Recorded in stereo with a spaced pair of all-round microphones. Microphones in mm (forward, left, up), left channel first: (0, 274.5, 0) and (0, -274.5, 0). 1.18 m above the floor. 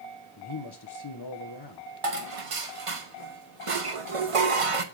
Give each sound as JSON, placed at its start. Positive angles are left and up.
{"t": 0.4, "sound": "a man speaking", "side_deg": 45, "distance_m": 1.0}
{"t": 2.0, "sound": "dishes clattering", "side_deg": -70, "distance_m": 1.0}